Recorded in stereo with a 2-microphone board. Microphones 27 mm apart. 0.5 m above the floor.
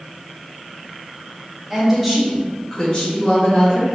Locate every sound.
1.7 s a woman speaking: 20° right (ahead or behind), 1.4 m; by 3.9 s 55° left (ahead or behind), 2 m